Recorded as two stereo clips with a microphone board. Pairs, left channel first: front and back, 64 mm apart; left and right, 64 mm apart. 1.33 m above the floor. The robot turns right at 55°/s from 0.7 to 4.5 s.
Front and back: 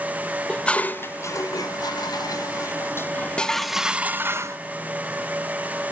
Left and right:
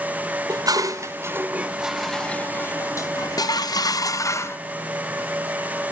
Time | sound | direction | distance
0.5 | dishes clattering | 70° right | 1.0 m